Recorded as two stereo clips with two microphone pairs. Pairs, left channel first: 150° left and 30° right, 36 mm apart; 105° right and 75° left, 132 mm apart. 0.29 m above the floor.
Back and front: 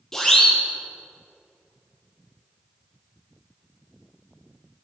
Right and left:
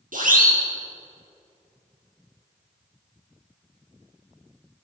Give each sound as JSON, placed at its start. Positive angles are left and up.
{"t": 0.1, "sound": "a siren", "azimuth_deg": 70, "distance_m": 8.0}